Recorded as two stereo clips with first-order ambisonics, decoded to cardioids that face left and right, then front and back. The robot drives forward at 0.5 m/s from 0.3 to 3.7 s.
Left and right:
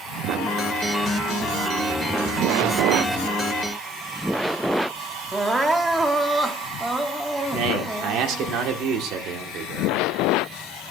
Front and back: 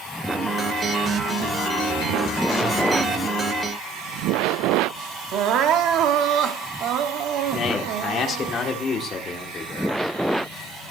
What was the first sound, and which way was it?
Crying, 170° right.